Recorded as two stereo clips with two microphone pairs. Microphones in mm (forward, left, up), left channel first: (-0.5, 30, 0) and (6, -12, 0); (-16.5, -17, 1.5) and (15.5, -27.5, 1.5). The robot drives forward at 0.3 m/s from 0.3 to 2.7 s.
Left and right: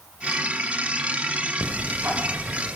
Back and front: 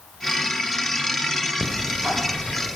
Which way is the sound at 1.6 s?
80° right.